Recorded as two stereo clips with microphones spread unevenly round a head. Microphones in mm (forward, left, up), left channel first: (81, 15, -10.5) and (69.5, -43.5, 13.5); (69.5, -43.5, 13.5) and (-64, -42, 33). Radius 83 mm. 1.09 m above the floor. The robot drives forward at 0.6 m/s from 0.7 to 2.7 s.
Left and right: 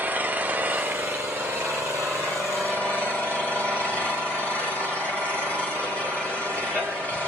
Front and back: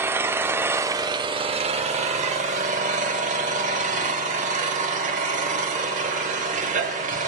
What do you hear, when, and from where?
0.0 s an engine running: 120° right, 0.9 m; by 7.3 s 160° right, 1.7 m